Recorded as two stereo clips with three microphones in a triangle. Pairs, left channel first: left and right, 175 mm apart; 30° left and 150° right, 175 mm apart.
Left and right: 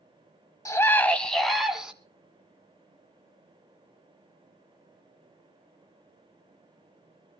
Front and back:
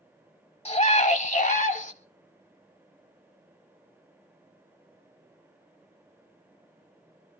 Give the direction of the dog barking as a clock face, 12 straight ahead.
I don't hear a dog barking.